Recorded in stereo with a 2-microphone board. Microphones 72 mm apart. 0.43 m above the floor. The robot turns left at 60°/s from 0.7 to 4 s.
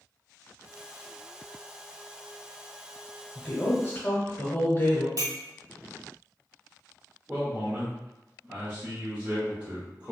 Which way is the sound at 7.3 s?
25° right (ahead or behind).